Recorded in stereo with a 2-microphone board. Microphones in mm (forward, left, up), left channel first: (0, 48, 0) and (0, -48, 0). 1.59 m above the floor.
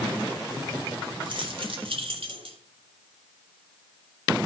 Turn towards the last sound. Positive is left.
turn(degrees=-75)  # may be behind; listen again after turning